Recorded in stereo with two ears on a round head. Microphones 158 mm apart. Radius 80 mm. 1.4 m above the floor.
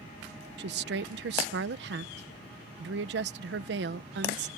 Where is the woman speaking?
65° right (ahead or behind).